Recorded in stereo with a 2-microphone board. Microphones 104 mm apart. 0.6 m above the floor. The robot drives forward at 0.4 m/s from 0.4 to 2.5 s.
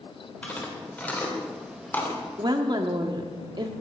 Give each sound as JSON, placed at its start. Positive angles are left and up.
{"t": 0.4, "sound": "chewing", "side_deg": 15, "distance_m": 2.0}
{"t": 2.4, "sound": "a woman speaking", "side_deg": -40, "distance_m": 0.9}